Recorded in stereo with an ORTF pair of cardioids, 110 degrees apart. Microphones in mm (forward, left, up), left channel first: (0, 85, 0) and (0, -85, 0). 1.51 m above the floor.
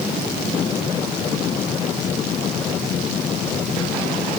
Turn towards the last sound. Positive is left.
No sound to turn to.